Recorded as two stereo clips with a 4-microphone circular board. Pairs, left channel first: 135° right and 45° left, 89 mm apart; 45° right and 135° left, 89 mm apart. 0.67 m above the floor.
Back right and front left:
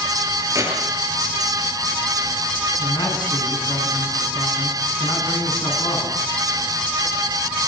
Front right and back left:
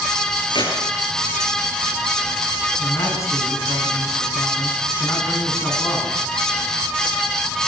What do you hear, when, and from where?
0.5 s keys jangling: 10° right, 8 m
2.8 s a man speaking: 95° right, 7.5 m